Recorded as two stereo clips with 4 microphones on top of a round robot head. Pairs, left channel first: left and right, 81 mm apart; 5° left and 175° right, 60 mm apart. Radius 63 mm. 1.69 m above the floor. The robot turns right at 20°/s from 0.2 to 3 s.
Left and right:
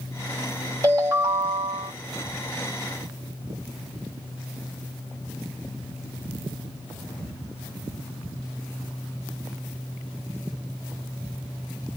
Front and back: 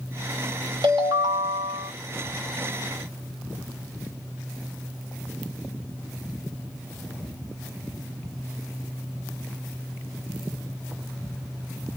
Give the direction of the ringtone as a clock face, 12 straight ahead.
5 o'clock.